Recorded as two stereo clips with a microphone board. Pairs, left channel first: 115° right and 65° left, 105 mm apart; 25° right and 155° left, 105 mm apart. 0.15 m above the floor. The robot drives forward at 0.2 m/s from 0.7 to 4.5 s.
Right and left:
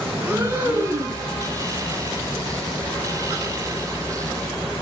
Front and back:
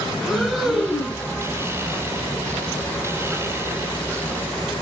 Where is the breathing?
60° left, 1.5 m; by 1.2 s 70° left, 1.5 m.